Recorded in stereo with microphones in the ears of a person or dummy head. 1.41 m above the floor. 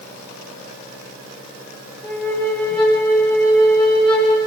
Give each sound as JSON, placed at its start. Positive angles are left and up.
{"t": 2.0, "sound": "a flute", "side_deg": 0, "distance_m": 1.3}